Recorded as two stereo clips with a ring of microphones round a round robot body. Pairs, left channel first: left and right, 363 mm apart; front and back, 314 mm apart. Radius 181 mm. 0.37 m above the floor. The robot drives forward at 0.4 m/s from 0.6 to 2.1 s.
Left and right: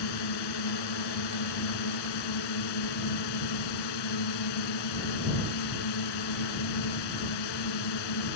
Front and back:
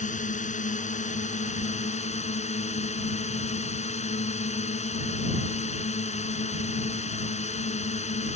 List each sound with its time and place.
0.0 s a drone: 65° left; by 8.4 s 70° left